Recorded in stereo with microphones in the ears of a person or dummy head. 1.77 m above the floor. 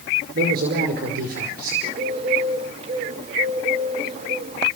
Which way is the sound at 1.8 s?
30° right (ahead or behind).